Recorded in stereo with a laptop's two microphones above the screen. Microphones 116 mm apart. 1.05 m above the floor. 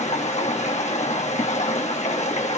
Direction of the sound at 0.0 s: 80° left.